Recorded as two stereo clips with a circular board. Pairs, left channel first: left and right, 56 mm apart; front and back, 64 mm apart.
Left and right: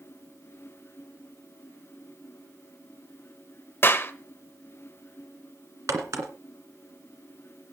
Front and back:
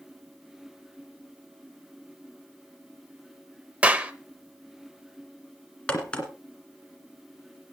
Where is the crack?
70° right, 2 m.